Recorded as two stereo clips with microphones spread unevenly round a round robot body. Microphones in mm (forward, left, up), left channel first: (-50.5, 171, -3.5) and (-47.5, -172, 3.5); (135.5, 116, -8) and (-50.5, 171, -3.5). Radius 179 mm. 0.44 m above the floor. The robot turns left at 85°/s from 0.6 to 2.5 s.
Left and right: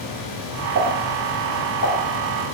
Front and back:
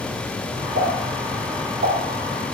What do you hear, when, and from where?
0.8 s a pop: 130° right, 4 m; by 1.9 s 125° left, 4 m